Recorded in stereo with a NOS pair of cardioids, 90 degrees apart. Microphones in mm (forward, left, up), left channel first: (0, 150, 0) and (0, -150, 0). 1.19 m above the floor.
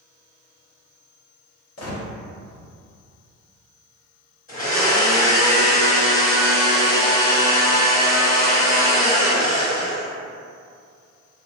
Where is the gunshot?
60° left, 1.1 m.